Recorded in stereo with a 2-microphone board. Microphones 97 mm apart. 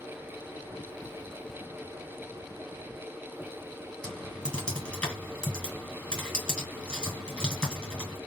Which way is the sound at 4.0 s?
10° left (ahead or behind).